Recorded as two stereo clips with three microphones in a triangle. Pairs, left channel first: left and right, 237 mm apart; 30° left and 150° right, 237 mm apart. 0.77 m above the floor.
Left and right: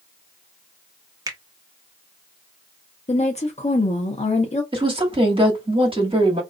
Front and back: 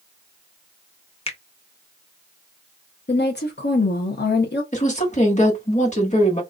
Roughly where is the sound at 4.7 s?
Ahead right.